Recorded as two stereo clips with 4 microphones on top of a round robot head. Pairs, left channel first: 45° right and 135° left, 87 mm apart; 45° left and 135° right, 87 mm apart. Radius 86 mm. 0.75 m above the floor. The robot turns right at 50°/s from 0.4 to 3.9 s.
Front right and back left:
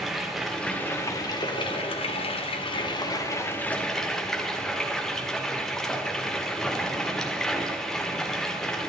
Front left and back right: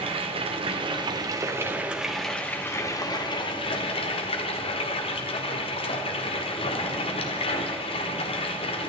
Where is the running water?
135° right, 1.6 m; by 8.9 s 40° left, 1.6 m.